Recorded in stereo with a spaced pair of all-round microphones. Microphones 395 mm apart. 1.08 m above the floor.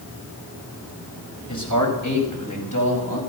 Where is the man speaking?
45° left (ahead or behind), 5 m; by 3.2 s 55° left (ahead or behind), 6.5 m.